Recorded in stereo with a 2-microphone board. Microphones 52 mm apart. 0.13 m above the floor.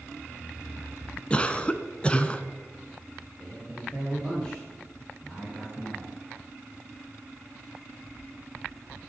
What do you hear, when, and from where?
1.3 s a cough: 20° left (ahead or behind), 1.2 m
3.4 s a man speaking: 20° left (ahead or behind), 5 m